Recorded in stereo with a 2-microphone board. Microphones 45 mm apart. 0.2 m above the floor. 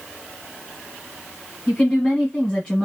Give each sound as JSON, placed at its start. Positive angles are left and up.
{"t": 1.7, "sound": "a woman speaking", "side_deg": 15, "distance_m": 1.5}